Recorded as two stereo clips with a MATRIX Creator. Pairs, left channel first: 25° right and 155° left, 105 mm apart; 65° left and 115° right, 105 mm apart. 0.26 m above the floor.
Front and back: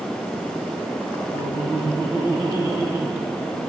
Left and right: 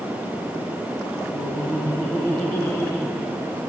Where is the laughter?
130° left, 1.6 m.